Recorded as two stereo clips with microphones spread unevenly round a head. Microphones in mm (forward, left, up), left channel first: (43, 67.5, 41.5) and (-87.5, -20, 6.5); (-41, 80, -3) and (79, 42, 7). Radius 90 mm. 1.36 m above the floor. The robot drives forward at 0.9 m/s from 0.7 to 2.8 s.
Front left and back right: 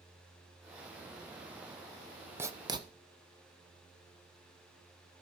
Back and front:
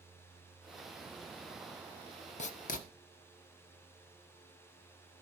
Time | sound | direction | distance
2.4 | writing | 145° left | 0.9 m